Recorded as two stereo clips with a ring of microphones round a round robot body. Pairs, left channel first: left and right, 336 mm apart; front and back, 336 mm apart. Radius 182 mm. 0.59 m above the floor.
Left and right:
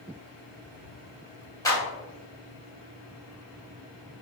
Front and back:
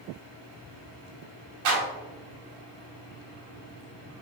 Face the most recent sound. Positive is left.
turn(degrees=170)